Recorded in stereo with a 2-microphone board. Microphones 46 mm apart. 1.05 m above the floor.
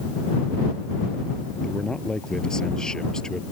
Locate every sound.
1.6 s a man speaking: 15° left (ahead or behind)